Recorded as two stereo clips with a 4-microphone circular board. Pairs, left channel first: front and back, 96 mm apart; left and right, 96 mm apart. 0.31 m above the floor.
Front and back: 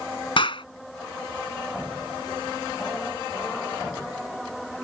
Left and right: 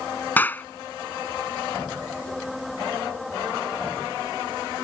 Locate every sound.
0.4 s a clap: 20° left